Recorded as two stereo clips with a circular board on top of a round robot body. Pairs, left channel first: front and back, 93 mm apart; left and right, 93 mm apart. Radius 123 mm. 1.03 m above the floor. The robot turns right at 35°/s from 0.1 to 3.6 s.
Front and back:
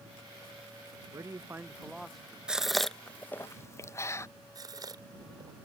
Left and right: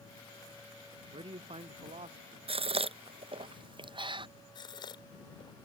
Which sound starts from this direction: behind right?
A man speaking, at 1.1 s.